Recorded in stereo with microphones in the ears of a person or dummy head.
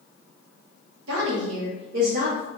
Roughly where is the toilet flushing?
No toilet flushing in this recording.